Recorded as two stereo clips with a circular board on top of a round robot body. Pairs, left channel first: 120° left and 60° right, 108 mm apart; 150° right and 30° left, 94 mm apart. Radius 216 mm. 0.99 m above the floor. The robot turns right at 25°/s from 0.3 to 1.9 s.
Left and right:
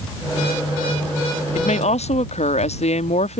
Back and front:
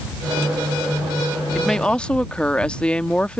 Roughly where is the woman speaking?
Behind left.